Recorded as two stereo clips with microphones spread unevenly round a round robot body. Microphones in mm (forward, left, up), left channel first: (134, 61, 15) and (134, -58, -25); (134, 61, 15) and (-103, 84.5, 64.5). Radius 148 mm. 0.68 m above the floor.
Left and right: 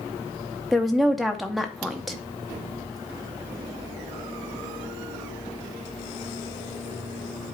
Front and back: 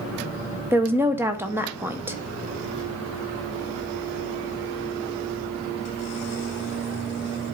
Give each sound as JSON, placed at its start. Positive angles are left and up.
{"t": 0.7, "sound": "a woman speaking", "azimuth_deg": -85, "distance_m": 0.6}